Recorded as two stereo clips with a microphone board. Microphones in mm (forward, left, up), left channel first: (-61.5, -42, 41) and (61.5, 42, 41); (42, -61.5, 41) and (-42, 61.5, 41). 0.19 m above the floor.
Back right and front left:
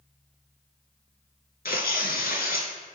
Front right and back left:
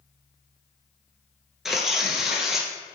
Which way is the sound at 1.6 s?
150° right.